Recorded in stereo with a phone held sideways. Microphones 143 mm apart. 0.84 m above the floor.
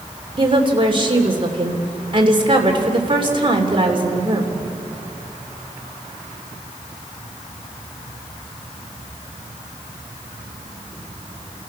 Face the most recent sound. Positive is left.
turn(degrees=-35)  # may be behind; listen again after turning